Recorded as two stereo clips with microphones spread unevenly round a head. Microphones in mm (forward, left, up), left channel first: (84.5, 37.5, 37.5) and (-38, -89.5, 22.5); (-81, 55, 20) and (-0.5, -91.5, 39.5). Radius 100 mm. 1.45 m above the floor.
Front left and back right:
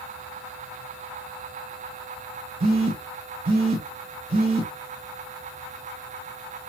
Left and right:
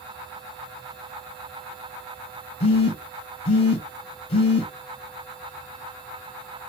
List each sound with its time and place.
2.6 s a phone buzzing: 170° left, 1.0 m